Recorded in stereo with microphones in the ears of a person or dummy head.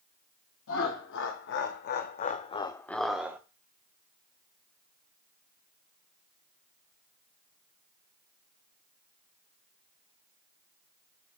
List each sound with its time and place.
0.7 s laughter: 70° left (ahead or behind), 1.3 m; by 3.4 s 15° right (ahead or behind), 0.6 m